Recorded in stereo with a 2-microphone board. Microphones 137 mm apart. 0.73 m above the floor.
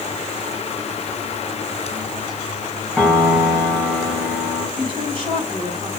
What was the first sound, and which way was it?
A piano, centre (ahead or behind).